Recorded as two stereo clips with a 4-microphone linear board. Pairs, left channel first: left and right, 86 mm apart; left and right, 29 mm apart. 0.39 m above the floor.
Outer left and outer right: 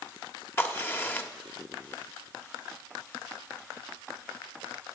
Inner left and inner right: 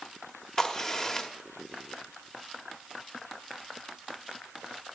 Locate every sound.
0.6 s a crack: 25° left (ahead or behind), 1.2 m